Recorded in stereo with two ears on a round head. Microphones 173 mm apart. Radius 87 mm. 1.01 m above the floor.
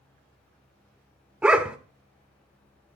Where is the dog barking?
5° right (ahead or behind), 1.2 m.